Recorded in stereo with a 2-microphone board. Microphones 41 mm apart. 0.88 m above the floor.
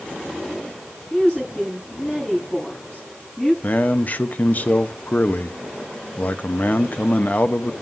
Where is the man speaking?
45° left (ahead or behind), 0.7 m.